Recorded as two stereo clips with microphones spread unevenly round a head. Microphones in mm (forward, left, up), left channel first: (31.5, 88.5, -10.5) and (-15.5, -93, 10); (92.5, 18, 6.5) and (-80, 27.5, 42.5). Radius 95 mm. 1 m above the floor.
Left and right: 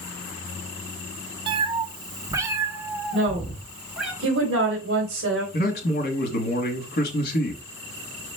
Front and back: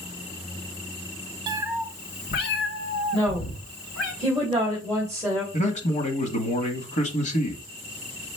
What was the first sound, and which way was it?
A cat meowing, 150° right.